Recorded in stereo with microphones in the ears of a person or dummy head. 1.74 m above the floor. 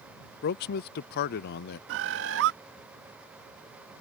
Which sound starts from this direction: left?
A man speaking, at 0.4 s.